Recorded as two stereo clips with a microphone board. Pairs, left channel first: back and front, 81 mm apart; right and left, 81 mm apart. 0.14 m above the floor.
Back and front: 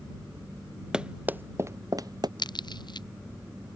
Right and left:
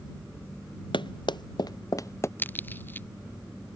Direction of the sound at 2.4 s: 155° right.